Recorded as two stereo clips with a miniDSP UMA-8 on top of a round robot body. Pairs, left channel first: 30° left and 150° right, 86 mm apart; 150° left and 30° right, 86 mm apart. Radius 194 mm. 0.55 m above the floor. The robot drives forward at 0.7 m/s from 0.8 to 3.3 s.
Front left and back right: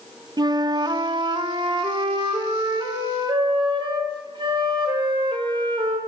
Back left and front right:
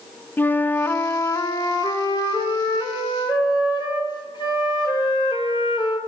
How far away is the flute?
About 0.8 m.